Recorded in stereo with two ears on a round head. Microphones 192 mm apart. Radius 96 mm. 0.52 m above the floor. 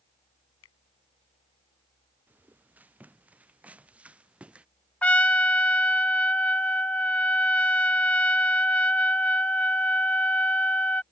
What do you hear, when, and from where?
0.6 s a finger snap: 75° left (ahead or behind)
2.3 s footsteps: 10° right (ahead or behind); by 4.7 s 5° right (ahead or behind)
5.0 s a trumpet: 5° left (ahead or behind)